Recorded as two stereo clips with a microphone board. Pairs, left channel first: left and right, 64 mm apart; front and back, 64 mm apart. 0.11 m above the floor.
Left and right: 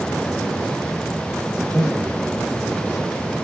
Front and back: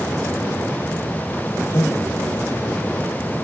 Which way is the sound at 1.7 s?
15° left.